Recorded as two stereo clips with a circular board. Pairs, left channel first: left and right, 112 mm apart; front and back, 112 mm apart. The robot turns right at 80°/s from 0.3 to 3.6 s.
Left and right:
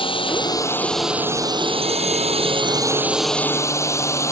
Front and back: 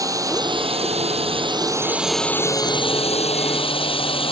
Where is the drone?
125° left; by 4.3 s 30° left.